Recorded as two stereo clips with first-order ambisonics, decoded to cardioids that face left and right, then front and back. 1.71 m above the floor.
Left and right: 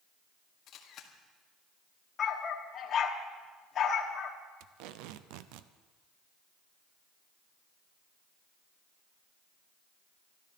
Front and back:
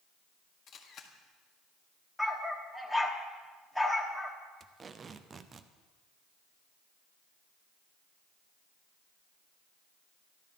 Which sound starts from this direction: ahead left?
A camera shutter, at 0.7 s.